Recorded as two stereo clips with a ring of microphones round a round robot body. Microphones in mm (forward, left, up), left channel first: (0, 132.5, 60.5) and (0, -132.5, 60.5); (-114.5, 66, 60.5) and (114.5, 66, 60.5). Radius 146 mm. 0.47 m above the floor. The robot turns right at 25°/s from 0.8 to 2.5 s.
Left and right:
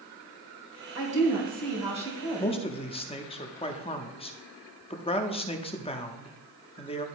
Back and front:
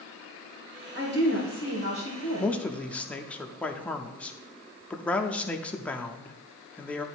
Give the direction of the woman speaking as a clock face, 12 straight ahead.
2 o'clock.